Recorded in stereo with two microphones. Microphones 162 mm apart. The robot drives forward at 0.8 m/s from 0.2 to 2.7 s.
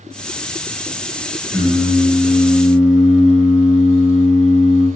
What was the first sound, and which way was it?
Singing, 5° right (ahead or behind).